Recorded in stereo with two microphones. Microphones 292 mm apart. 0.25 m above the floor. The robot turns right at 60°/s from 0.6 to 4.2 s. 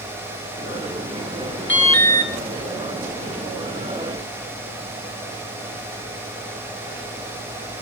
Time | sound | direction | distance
1.7 | an alarm | 40° left | 4 m